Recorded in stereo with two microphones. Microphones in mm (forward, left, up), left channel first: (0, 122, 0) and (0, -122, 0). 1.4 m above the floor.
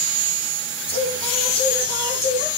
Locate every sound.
0.9 s singing: 25° left (ahead or behind), 6 m